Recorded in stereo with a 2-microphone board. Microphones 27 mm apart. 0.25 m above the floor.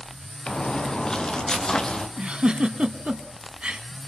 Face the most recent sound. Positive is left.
turn(degrees=-45)  # may be behind; listen again after turning